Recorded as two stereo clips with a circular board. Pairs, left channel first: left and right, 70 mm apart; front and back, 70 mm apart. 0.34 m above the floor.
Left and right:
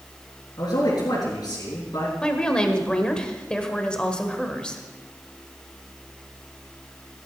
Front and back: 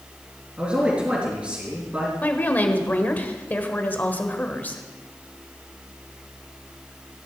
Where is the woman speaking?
25° left, 1.5 m.